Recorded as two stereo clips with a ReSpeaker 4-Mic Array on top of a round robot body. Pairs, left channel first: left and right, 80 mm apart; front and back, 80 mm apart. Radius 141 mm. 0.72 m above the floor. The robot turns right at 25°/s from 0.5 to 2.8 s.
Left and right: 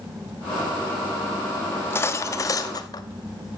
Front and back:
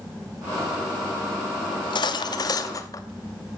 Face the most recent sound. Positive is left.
turn(degrees=50)